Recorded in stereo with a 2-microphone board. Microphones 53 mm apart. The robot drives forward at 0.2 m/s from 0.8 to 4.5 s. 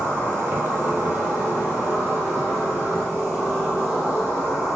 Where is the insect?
40° right (ahead or behind), 1.5 m; by 4.8 s 25° right (ahead or behind), 2 m.